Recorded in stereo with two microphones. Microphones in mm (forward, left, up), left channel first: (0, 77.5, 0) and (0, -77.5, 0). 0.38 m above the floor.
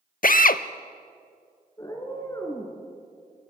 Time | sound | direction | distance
0.2 | a drill | 65° left (ahead or behind) | 0.5 m
1.8 | a cat meowing | 25° left (ahead or behind) | 3 m